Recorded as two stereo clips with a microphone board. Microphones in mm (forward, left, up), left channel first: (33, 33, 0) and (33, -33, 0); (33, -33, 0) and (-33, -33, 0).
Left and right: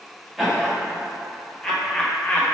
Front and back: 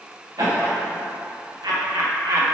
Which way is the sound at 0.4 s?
175° left.